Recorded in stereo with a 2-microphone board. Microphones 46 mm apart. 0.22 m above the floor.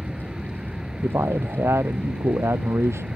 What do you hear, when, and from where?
0.0 s an aircraft: 15° right (ahead or behind)
1.0 s a man speaking: 80° right